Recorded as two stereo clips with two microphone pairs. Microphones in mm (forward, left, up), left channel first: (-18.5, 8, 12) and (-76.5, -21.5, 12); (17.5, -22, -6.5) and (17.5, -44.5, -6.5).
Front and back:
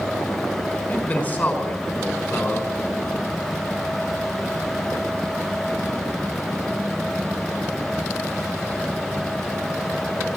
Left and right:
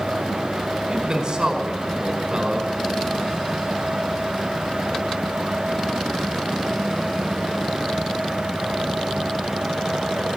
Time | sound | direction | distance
0.9 | a man speaking | 45° right | 4.5 m